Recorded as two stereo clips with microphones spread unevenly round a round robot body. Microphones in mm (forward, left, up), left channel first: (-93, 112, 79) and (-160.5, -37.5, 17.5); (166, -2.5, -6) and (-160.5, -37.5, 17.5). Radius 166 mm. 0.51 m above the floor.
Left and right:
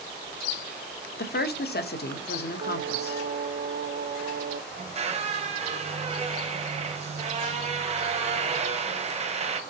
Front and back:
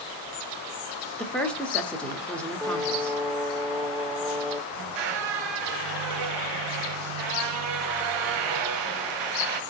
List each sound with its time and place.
1.2 s a woman speaking: 85° left, 1.0 m
2.6 s singing: 85° right, 0.5 m
4.7 s a squeak: 170° right, 1.2 m